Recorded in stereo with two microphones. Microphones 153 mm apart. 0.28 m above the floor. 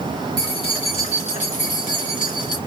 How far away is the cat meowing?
I don't hear a cat meowing.